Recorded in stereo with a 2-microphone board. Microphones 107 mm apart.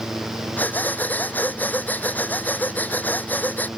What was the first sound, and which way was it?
Breathing, 15° left (ahead or behind).